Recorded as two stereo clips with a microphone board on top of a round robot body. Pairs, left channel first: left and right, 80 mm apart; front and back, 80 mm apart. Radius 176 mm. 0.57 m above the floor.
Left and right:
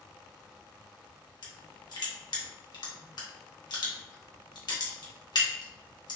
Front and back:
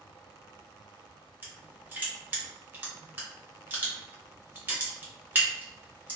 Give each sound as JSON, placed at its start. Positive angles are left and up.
{"t": 1.4, "sound": "crushing", "azimuth_deg": 115, "distance_m": 1.4}